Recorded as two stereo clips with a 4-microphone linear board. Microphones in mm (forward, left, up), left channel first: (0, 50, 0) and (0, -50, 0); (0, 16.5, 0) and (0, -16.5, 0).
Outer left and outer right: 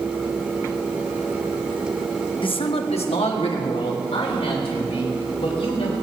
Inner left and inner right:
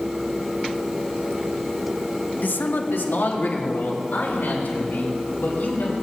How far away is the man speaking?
About 0.9 m.